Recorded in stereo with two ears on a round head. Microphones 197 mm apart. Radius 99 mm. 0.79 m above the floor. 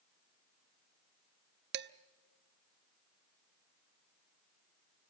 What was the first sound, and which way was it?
Dishes clattering, 50° right (ahead or behind).